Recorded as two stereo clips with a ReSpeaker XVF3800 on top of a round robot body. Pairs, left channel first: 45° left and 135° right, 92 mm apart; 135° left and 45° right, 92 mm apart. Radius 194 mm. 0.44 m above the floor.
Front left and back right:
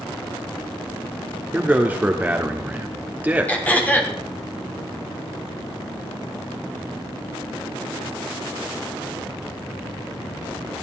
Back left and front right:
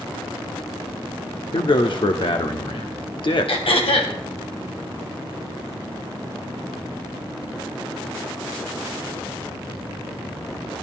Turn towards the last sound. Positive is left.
turn(degrees=115)